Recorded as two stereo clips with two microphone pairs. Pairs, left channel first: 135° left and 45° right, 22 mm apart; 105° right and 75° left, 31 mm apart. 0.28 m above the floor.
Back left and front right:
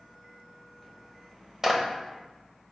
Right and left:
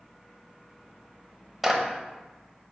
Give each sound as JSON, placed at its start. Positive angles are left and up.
{"t": 1.6, "sound": "a clap", "azimuth_deg": -5, "distance_m": 0.9}